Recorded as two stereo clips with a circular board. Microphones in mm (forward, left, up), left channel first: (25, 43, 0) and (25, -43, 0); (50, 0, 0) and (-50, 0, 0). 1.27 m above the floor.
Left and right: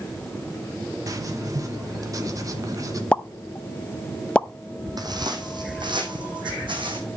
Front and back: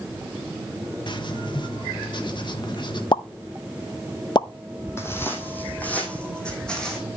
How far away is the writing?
About 1.4 m.